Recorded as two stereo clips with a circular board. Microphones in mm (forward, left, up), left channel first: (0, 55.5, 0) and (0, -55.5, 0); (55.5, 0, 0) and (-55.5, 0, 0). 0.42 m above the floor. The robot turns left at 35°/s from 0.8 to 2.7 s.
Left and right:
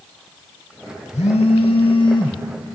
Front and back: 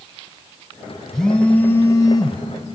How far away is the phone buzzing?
About 0.7 m.